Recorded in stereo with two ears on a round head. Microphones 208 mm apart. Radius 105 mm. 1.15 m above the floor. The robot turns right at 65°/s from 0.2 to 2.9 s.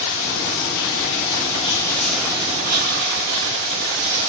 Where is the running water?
55° left, 8.5 m; by 4.3 s 125° right, 8.5 m.